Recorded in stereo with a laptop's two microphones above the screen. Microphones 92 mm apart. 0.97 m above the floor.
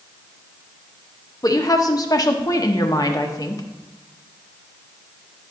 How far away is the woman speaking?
About 1.1 m.